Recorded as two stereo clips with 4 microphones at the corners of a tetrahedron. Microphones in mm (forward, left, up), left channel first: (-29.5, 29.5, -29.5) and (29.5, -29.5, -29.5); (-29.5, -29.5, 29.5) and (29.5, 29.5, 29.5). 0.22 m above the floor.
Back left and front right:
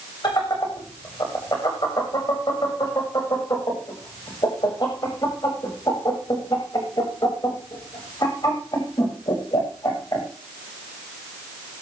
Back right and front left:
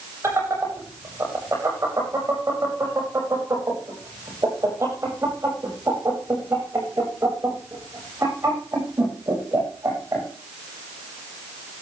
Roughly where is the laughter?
Left.